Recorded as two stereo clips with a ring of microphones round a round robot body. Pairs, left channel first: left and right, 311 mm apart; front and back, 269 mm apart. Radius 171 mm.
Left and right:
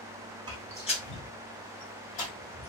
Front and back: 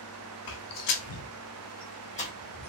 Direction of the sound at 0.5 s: 15° right.